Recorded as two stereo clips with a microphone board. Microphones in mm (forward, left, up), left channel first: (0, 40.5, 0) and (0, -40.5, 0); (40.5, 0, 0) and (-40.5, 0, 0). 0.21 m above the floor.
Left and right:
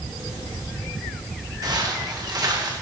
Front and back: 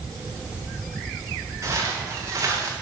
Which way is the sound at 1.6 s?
130° right.